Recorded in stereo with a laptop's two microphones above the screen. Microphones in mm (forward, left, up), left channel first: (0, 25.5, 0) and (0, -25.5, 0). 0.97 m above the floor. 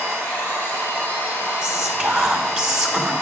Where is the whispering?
15° right (ahead or behind), 1.2 m.